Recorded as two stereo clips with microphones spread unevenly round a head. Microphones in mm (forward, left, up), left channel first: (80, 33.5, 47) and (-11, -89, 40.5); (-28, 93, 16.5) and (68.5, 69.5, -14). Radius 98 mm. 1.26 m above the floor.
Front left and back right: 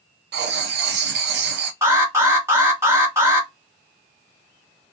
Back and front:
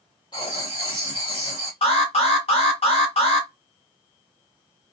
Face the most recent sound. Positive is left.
turn(degrees=170)